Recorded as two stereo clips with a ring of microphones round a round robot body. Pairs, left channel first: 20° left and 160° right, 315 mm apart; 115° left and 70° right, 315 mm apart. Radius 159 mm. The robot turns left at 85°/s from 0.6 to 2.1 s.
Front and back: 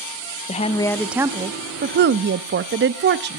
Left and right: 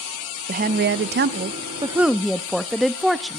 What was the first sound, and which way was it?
A woman speaking, 30° right.